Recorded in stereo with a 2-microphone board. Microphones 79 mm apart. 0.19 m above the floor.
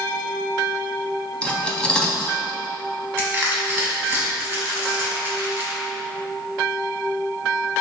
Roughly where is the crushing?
Right.